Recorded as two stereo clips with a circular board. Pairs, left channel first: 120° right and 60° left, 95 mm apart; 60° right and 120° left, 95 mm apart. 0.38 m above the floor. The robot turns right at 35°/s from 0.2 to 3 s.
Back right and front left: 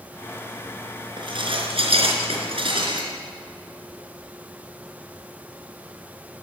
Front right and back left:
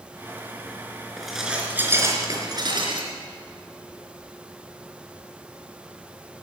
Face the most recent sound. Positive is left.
turn(degrees=90)